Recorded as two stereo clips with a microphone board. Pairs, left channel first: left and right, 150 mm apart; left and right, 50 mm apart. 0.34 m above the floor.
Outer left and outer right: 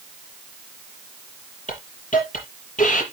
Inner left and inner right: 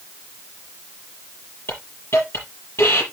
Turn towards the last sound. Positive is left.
turn(degrees=60)  # may be behind; listen again after turning